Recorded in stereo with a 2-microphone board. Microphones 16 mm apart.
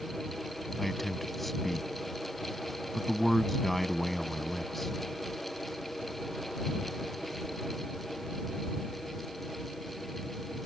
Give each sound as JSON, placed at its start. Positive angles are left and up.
{"t": 0.8, "sound": "a man speaking", "side_deg": 10}